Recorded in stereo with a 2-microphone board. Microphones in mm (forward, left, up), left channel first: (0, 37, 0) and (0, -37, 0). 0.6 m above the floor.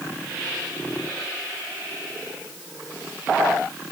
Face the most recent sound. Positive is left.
No sound to turn to.